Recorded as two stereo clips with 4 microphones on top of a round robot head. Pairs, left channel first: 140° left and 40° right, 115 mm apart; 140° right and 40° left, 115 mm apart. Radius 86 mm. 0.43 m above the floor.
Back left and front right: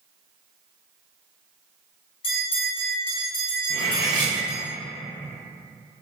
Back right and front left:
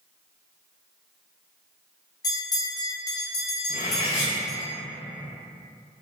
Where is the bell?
170° left, 1.0 m.